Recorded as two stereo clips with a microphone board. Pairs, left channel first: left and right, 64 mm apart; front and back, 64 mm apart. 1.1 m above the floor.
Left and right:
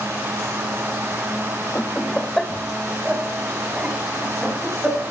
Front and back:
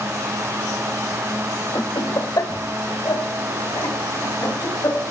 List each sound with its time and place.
1.8 s laughter: 30° left, 1.2 m; by 5.1 s 15° right, 5 m